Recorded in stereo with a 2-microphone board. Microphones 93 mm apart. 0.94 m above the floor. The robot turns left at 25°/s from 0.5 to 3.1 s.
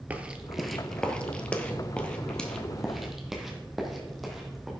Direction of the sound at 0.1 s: 15° right (ahead or behind).